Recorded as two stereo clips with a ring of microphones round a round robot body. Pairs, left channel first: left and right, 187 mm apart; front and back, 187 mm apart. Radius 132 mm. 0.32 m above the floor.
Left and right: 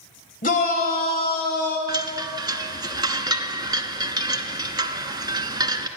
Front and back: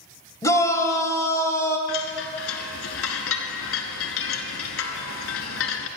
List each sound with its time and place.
0.4 s a shout: 70° left, 1.9 m; by 1.8 s 75° left, 2.5 m
1.9 s a chime: 20° right, 0.8 m